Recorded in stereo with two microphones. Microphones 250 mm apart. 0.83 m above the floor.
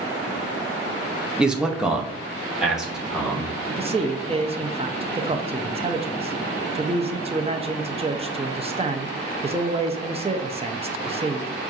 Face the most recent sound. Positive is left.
turn(degrees=-25)  # may be behind; listen again after turning